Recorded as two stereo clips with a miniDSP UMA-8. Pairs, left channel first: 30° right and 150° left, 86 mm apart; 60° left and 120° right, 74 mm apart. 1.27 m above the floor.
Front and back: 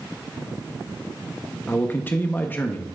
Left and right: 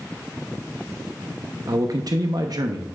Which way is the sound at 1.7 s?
95° right.